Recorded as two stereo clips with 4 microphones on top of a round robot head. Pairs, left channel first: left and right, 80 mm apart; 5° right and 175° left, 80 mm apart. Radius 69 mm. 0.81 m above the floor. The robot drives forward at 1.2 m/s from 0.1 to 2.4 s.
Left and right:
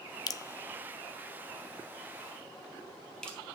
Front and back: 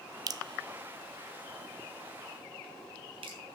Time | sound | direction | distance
0.3 | dripping | 130° left | 0.6 m